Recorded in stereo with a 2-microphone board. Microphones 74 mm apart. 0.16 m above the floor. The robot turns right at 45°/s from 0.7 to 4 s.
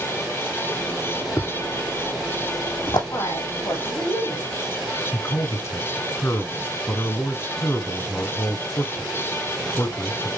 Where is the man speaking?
35° left (ahead or behind), 1.5 m.